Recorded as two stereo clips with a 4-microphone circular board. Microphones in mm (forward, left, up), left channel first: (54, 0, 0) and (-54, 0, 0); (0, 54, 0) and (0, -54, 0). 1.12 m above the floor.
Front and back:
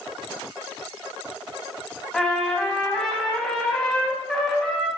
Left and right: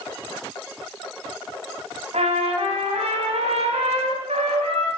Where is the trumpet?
85° right, 3.5 m.